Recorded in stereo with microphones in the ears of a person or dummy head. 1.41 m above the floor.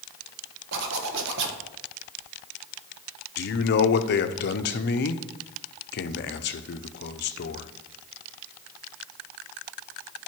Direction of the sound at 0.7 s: 65° right (ahead or behind).